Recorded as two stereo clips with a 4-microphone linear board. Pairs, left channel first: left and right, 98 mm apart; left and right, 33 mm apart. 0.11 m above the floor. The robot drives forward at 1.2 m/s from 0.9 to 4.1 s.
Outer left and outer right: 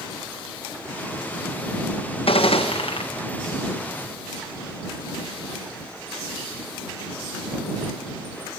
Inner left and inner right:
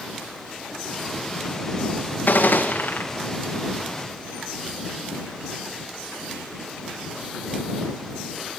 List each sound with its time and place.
2.3 s a gunshot: 75° left (ahead or behind), 3.5 m; by 3.0 s 85° left, 3.5 m